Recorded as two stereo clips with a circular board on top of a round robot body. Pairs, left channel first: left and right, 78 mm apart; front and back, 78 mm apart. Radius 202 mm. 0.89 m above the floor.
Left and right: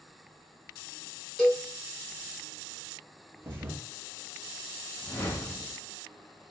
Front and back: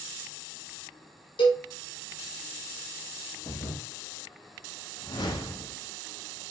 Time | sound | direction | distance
1.4 | a cowbell | straight ahead | 1.1 m
3.4 | a thud | 30° right | 0.5 m
5.0 | a whoosh | 30° left | 0.7 m